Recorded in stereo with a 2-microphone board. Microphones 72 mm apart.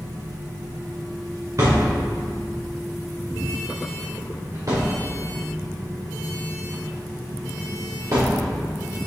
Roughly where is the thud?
Right.